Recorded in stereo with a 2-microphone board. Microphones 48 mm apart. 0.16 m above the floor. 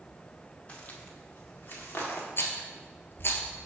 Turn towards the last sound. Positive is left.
turn(degrees=55)  # may be behind; listen again after turning